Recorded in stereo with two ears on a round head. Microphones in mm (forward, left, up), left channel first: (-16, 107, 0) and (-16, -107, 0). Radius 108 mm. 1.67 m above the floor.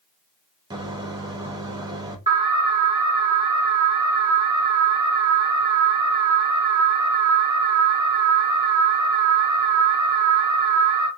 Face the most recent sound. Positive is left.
turn(degrees=-15)  # may be behind; listen again after turning